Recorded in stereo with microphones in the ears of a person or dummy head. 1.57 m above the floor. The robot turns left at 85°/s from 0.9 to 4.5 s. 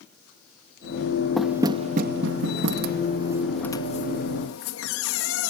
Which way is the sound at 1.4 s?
5° left (ahead or behind).